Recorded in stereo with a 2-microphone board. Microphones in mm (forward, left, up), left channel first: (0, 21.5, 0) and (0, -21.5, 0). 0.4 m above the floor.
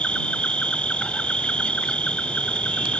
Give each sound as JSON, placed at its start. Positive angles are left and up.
{"t": 0.0, "sound": "an insect", "side_deg": 30}